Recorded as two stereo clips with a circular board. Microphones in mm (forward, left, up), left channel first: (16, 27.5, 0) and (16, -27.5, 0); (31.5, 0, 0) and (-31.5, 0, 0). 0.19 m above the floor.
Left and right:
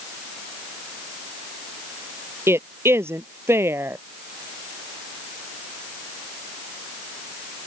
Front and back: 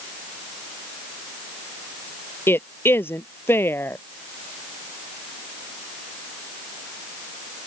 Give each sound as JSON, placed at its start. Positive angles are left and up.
{"t": 2.5, "sound": "a woman speaking", "azimuth_deg": -50}